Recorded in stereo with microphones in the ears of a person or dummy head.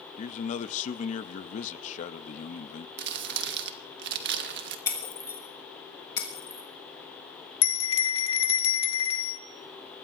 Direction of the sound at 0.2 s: 45° left (ahead or behind).